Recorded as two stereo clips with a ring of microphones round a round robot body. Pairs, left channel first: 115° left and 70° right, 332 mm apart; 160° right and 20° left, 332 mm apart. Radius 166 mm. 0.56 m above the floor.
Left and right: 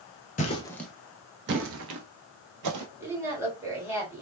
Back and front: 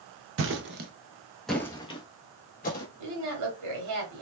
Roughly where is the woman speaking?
Ahead.